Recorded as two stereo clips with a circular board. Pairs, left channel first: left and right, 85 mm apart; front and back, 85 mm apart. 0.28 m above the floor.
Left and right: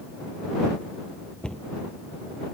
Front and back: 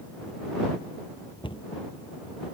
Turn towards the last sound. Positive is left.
turn(degrees=10)